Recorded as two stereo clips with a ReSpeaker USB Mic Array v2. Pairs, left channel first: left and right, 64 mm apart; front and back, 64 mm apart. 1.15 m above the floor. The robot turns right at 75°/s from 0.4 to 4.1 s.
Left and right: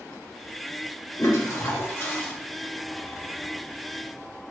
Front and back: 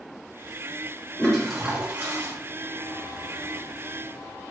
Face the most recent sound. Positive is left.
turn(degrees=-75)